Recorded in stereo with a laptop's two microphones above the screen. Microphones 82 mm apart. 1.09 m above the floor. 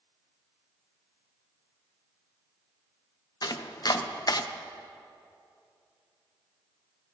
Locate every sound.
3.4 s chopping: 45° left (ahead or behind), 0.6 m